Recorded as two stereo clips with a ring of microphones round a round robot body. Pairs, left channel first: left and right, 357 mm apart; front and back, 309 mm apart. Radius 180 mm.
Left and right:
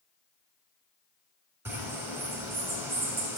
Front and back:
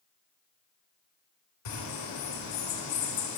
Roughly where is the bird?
Ahead.